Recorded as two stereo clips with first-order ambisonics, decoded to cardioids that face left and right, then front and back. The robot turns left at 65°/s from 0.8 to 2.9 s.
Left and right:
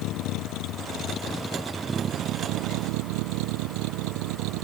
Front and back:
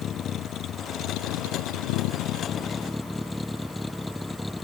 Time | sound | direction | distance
0.0 | a vehicle | 55° left | ?